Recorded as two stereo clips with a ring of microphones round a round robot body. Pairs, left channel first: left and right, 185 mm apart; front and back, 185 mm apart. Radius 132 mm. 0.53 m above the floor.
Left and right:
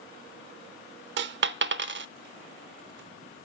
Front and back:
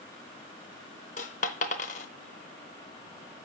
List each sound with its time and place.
1.2 s a dropped coin: 65° right, 0.6 m